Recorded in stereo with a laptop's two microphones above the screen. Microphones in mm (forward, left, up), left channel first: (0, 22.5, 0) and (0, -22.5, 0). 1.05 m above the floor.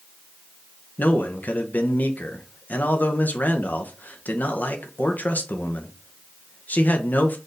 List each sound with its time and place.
1.0 s a man speaking: 40° left (ahead or behind), 0.7 m